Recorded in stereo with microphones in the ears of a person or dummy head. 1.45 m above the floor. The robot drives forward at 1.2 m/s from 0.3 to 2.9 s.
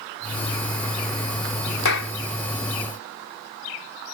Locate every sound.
1.9 s a clap: 85° left; by 2.1 s 90° left